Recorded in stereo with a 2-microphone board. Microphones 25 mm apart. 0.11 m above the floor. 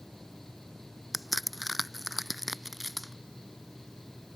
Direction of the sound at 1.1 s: 5° right (ahead or behind).